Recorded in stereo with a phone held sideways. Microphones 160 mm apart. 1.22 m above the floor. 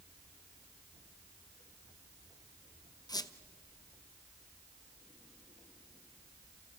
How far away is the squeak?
About 0.7 m.